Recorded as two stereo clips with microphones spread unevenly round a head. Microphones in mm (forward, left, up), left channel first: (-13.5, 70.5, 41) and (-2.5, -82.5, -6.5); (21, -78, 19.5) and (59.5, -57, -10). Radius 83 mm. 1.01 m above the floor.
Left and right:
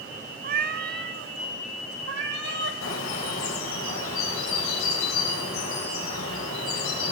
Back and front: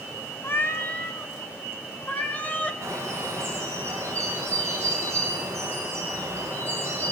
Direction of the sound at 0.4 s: 120° right.